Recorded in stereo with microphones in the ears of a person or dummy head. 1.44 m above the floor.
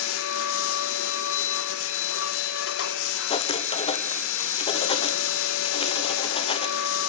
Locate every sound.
0.0 s a machine running: 70° left (ahead or behind), 1.5 m
3.3 s writing: 30° left (ahead or behind), 1.4 m